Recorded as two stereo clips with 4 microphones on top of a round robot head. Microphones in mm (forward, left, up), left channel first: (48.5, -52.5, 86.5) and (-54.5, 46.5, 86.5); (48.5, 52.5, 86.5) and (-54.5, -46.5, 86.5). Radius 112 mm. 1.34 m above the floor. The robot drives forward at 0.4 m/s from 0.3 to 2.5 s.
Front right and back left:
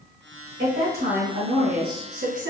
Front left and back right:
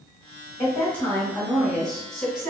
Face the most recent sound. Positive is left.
turn(degrees=135)